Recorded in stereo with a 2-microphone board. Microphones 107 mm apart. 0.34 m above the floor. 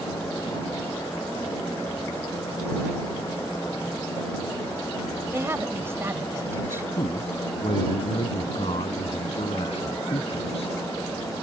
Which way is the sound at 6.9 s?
70° left (ahead or behind).